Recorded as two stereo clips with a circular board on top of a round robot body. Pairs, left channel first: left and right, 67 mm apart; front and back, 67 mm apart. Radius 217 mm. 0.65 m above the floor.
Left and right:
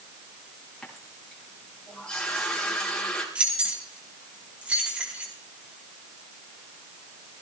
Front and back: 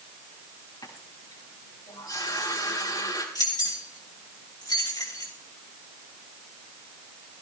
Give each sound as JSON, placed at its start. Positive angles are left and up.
{"t": 0.8, "sound": "a running tap", "azimuth_deg": 10, "distance_m": 5.5}
{"t": 3.4, "sound": "keys jangling", "azimuth_deg": -20, "distance_m": 4.5}